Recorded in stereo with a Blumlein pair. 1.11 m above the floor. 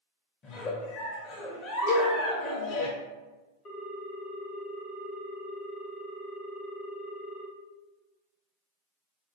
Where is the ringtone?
25° left, 0.7 m.